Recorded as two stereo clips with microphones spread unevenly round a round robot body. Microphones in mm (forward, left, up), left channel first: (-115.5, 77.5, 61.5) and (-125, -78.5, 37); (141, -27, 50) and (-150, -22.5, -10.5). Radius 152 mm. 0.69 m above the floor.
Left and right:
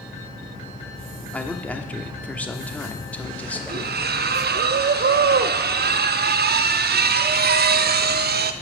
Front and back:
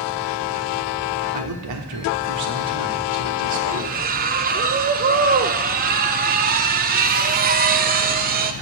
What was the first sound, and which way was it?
A man speaking, 170° left.